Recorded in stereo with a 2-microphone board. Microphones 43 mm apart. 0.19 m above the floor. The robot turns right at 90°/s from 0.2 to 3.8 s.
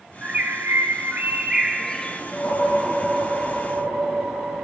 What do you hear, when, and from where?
0.2 s a bird: 145° right, 0.6 m; by 2.2 s 35° left, 0.6 m
2.3 s a whoosh: 105° left, 3 m; by 4.7 s 120° right, 3 m